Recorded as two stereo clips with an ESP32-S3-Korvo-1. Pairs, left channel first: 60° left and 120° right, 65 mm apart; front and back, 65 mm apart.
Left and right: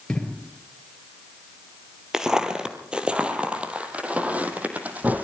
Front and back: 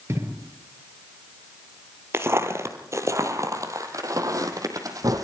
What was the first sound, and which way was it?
An explosion, 140° left.